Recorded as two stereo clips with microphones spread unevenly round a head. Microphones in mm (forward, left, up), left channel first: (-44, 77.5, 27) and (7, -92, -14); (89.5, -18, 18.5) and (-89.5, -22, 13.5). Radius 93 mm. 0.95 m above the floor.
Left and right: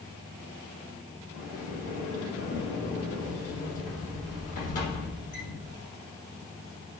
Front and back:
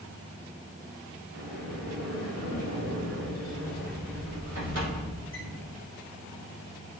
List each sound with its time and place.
1.3 s a sliding door: 155° left, 3 m